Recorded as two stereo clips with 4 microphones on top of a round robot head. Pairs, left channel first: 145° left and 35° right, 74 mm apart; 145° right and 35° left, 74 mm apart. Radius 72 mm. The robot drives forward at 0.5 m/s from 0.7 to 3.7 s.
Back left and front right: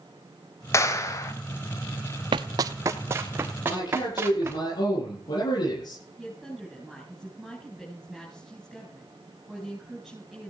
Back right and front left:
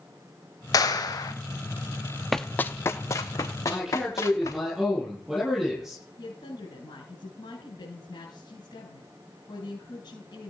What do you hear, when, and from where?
0.7 s a clap: 170° right, 3 m
2.3 s running footsteps: 55° right, 0.7 m; by 4.6 s 95° right, 3.5 m
3.6 s a man speaking: 125° left, 10 m
6.2 s a woman speaking: 125° right, 6.5 m